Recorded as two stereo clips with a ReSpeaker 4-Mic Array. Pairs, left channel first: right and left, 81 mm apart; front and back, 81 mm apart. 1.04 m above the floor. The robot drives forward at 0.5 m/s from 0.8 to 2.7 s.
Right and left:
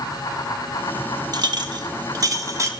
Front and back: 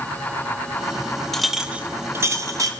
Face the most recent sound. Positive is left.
turn(degrees=140)